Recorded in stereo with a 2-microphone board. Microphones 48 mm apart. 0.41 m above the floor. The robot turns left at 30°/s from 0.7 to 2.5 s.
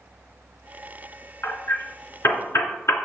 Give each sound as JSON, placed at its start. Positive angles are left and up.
{"t": 1.4, "sound": "hammering", "side_deg": 60, "distance_m": 3.0}